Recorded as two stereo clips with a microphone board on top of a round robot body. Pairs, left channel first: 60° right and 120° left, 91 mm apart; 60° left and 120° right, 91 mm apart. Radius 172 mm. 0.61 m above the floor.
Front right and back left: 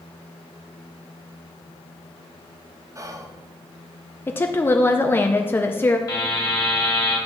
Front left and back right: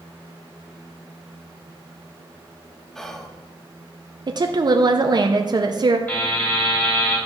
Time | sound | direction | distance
3.0 | whispering | 140° left | 1.0 m
4.3 | a woman speaking | 115° right | 0.7 m
6.1 | a buzzer | 10° right | 3 m